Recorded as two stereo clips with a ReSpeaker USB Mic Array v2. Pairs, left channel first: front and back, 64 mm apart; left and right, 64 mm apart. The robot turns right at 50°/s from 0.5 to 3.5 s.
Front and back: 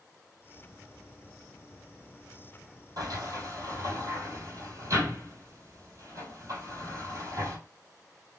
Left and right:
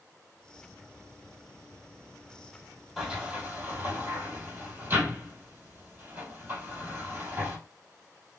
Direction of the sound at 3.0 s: 170° right.